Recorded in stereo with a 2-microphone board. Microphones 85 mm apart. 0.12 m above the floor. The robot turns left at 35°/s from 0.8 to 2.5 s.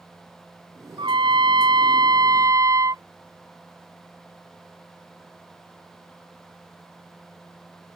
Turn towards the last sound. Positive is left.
turn(degrees=-135)